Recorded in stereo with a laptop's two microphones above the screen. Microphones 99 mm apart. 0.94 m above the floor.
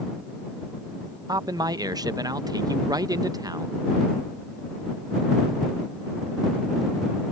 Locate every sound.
1.3 s a man speaking: 40° right (ahead or behind)